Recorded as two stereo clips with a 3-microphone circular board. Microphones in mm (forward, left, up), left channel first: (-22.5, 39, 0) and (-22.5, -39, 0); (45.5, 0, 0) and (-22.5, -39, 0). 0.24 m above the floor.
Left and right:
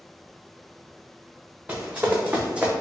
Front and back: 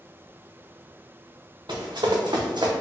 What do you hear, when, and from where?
1.7 s running footsteps: 160° right, 1.3 m; by 2.7 s 170° right, 0.7 m